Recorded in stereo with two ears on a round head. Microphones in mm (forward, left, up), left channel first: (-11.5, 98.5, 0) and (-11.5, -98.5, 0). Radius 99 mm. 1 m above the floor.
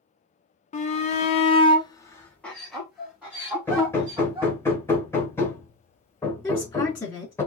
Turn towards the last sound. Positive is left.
turn(degrees=10)  # may be behind; listen again after turning